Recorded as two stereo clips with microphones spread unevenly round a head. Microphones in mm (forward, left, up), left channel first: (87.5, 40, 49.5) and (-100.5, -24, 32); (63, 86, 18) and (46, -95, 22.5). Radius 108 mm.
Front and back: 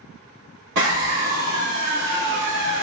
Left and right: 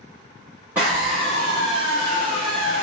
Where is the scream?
Straight behind, 1.9 m.